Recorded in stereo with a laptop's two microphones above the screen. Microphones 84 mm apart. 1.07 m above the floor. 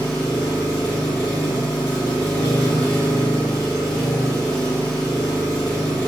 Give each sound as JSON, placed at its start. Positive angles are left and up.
{"t": 0.0, "sound": "an engine running", "side_deg": 65, "distance_m": 1.7}